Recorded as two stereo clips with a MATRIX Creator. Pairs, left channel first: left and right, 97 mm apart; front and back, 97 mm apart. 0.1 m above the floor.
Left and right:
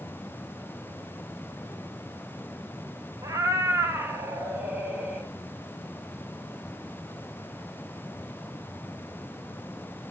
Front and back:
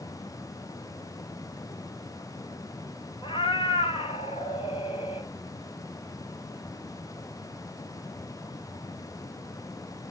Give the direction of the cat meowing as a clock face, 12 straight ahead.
1 o'clock.